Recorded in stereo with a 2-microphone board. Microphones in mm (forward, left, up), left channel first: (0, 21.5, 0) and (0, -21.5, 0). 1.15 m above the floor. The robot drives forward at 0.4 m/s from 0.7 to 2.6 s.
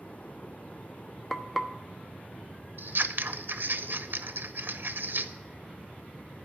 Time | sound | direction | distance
1.3 | frying | 5° left (ahead or behind) | 1.0 m
2.8 | scissors | 60° right (ahead or behind) | 0.6 m